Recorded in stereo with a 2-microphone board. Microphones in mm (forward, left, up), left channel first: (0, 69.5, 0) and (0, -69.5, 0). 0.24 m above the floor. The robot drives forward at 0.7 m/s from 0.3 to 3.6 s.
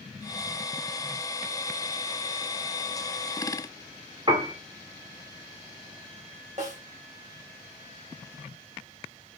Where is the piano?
35° right (ahead or behind), 1.8 m.